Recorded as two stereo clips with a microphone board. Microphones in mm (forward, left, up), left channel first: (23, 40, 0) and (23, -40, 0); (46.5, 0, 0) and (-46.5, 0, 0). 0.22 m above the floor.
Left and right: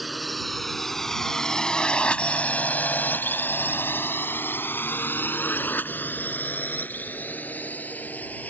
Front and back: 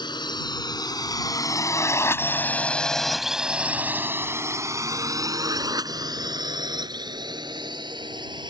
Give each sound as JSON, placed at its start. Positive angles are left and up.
{"t": 0.0, "sound": "a drone", "azimuth_deg": 0}